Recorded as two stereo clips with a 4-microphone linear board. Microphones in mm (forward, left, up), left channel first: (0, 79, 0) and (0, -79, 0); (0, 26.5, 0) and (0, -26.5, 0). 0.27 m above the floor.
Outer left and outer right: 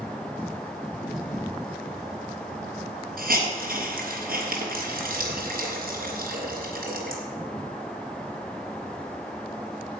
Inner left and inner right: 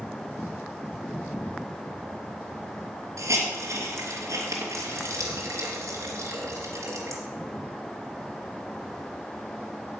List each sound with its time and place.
3.2 s a hiss: 70° right (ahead or behind), 3 m